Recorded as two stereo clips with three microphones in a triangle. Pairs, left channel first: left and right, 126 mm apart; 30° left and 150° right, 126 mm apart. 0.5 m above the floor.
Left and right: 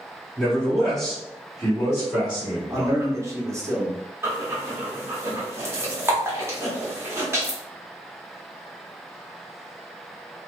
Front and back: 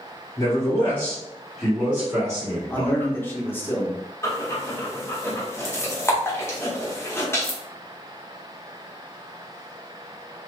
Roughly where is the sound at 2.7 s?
Ahead right.